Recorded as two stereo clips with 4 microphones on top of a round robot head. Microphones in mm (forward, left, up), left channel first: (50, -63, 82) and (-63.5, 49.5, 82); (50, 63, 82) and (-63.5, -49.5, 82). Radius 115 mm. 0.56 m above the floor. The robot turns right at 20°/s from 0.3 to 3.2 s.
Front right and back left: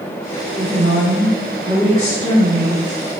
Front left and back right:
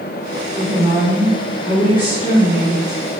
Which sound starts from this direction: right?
A woman speaking, at 0.6 s.